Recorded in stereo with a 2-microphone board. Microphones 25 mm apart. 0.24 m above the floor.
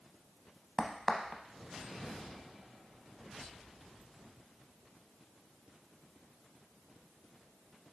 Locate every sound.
0.8 s a crack: 20° left (ahead or behind), 0.5 m